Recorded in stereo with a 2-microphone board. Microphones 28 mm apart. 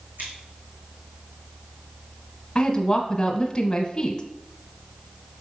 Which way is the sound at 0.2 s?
75° right (ahead or behind).